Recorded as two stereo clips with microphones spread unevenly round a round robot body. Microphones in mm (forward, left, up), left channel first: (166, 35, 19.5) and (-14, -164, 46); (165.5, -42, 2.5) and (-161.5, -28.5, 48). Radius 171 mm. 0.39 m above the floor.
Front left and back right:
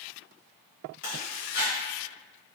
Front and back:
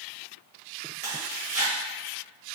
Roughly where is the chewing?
Left.